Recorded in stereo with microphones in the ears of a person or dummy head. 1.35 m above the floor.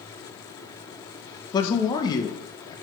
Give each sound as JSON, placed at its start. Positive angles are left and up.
{"t": 1.5, "sound": "a man speaking", "side_deg": 25, "distance_m": 1.3}